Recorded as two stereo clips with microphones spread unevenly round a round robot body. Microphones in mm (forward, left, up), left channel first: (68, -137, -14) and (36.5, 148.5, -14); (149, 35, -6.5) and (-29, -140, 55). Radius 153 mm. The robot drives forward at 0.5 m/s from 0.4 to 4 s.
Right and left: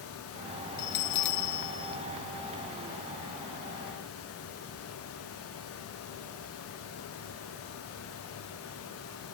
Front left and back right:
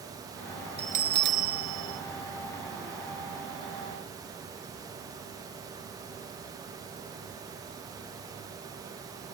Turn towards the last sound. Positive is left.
turn(degrees=-160)